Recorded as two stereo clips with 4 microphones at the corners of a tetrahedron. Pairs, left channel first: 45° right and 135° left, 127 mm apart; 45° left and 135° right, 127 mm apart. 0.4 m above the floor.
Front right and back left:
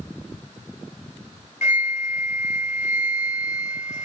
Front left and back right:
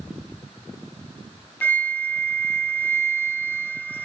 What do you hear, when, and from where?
1.6 s a flute: 30° right, 1.7 m